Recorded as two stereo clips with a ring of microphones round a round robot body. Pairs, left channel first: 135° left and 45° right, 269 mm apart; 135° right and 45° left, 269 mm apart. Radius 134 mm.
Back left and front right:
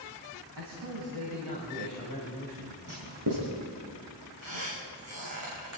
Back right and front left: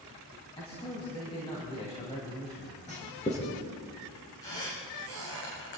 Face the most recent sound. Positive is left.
turn(degrees=-85)